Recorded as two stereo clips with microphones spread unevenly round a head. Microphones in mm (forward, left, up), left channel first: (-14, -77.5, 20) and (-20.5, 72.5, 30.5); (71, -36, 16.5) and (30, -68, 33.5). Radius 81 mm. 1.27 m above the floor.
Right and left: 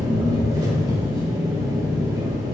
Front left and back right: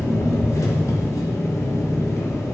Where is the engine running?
25° left, 1.8 m.